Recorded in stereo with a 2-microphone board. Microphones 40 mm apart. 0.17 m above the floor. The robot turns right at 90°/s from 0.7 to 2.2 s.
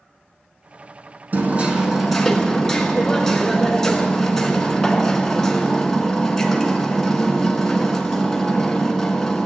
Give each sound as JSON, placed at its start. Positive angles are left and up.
{"t": 1.3, "sound": "hammering", "azimuth_deg": -65, "distance_m": 1.6}